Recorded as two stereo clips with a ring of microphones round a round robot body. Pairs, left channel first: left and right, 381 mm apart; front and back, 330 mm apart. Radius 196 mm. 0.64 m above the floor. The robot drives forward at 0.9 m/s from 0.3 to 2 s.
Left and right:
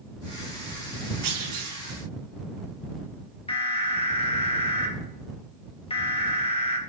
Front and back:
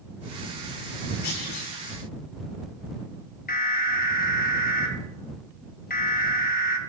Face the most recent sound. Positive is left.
turn(degrees=30)